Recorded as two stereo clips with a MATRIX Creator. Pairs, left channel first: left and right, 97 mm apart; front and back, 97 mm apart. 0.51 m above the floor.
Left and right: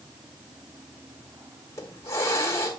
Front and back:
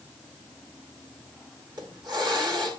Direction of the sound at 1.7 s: 145° left.